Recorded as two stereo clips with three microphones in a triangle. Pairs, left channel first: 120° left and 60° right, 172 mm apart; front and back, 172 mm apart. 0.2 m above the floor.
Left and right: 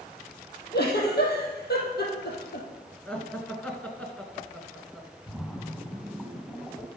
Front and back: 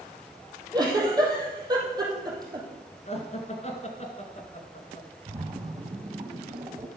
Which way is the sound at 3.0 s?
40° left.